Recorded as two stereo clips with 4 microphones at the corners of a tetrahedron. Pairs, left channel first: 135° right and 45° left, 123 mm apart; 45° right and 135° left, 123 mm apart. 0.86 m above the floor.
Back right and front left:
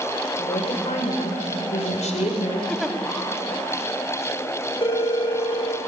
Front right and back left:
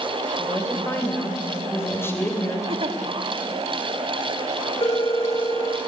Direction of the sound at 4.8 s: 90° right.